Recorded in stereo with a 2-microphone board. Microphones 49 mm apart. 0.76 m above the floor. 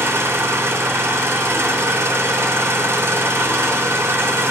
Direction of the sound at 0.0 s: 65° right (ahead or behind).